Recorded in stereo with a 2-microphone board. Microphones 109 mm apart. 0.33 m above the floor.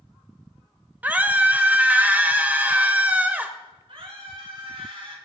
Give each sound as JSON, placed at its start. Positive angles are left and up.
{"t": 1.0, "sound": "a scream", "side_deg": -15, "distance_m": 1.1}
{"t": 3.9, "sound": "a scream", "side_deg": -55, "distance_m": 5.0}